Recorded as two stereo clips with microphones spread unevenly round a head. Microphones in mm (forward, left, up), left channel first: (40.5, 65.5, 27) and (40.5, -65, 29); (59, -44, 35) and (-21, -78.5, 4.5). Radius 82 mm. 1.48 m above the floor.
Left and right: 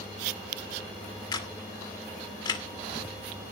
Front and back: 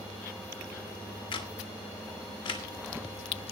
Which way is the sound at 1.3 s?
35° left.